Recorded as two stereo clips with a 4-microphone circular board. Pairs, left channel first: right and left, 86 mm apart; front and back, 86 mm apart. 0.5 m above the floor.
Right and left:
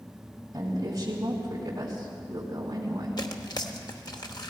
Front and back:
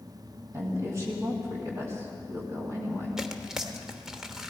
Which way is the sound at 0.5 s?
135° left.